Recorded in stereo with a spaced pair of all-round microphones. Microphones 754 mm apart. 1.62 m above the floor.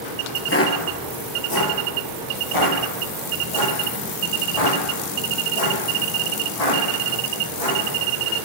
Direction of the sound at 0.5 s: 15° left (ahead or behind).